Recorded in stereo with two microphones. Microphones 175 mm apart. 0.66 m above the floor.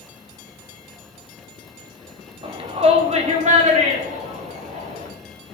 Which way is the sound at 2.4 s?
30° right (ahead or behind).